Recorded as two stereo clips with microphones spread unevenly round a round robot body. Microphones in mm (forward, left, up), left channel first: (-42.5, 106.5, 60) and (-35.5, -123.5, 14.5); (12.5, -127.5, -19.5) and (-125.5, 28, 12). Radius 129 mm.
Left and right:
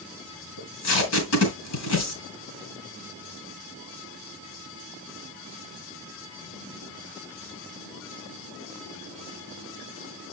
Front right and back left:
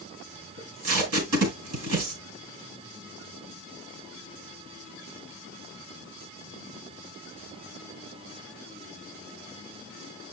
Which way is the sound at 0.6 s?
105° left.